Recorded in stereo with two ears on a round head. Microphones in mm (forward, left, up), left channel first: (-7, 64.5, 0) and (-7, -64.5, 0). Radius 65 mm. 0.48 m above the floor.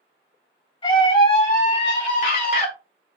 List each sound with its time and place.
0.8 s a scream: 35° left (ahead or behind), 3 m; by 2.7 s 65° left (ahead or behind), 2.5 m